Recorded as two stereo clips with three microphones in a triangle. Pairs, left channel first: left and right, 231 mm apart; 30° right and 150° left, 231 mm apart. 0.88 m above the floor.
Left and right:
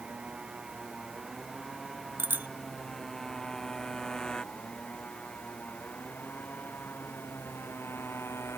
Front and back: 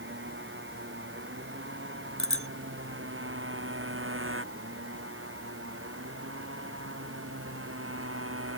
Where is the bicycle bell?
10° right.